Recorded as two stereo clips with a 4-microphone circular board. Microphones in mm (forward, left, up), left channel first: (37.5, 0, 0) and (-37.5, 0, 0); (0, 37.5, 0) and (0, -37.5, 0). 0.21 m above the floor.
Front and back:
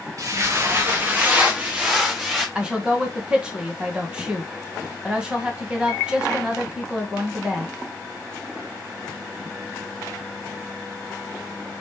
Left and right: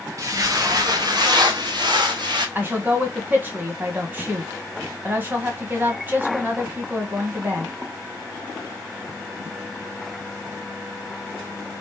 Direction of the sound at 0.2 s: 135° right.